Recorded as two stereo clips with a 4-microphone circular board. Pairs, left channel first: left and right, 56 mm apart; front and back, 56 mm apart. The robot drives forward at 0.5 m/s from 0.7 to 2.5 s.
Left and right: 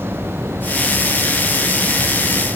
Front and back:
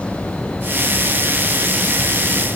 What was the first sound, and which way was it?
Only background noise.